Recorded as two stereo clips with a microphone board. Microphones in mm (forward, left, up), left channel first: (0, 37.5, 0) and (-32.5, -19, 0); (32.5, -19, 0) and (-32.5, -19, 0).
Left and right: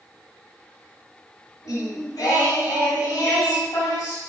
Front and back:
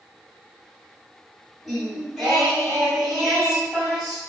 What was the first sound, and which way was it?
Singing, 90° left.